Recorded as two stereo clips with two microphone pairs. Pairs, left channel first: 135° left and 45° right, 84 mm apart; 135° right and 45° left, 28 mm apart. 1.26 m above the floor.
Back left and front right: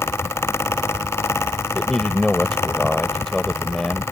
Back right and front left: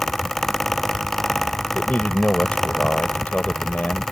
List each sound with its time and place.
1.8 s a man speaking: 140° right